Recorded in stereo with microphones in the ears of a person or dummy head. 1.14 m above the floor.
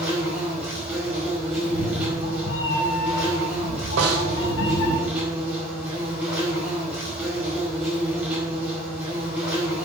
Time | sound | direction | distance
0.0 | an insect | 10° right (ahead or behind) | 4.5 m
1.6 | a cat meowing | 65° left (ahead or behind) | 2.5 m
4.0 | a snare drum | 70° right (ahead or behind) | 2 m